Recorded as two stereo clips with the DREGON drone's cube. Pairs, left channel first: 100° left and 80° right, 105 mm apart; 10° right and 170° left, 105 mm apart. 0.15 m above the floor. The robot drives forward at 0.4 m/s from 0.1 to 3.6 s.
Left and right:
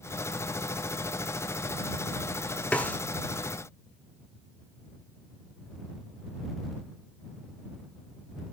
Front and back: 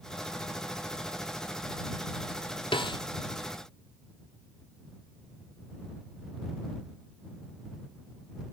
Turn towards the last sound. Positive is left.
turn(degrees=35)